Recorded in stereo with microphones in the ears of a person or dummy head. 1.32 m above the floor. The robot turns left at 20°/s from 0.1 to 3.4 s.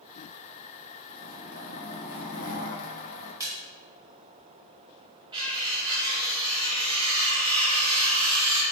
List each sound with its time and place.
1.1 s a zipper: 115° left, 0.9 m; by 3.3 s 75° left, 0.9 m
3.4 s a splash: 15° right (ahead or behind), 1.7 m
5.3 s cutlery clinking: 30° right (ahead or behind), 0.9 m